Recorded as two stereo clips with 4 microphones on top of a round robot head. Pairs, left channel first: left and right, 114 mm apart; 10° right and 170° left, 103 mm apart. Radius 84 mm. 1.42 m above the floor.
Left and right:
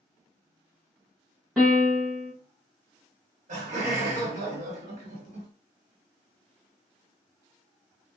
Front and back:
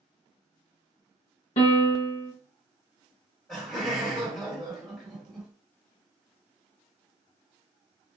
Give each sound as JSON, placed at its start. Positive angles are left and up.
{"t": 1.6, "sound": "a piano", "azimuth_deg": 0, "distance_m": 0.9}
{"t": 3.5, "sound": "laughter", "azimuth_deg": -100, "distance_m": 1.4}